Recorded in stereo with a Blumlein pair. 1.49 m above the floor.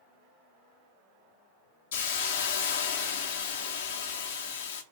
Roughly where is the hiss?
Ahead left.